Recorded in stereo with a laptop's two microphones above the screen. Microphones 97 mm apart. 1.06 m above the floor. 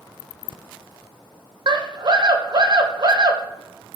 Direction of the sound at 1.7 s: 50° right (ahead or behind).